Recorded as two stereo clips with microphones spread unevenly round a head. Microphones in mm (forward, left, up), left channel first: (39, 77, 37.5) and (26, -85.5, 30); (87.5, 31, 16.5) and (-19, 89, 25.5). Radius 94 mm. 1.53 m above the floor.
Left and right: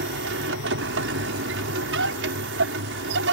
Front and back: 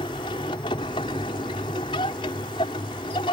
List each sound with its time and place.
0.0 s a machine running: 95° right